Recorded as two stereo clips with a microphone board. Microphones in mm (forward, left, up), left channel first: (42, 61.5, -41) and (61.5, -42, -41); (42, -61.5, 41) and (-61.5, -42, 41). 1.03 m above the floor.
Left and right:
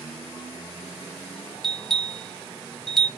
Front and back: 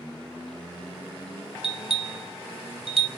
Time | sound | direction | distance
1.6 | a bell | 175° right | 0.7 m